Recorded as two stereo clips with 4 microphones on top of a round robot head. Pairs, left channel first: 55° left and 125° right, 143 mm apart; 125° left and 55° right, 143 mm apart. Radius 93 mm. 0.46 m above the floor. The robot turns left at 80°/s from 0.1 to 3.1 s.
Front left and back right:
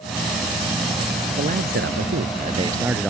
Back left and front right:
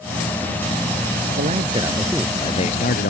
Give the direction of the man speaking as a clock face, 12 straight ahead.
3 o'clock.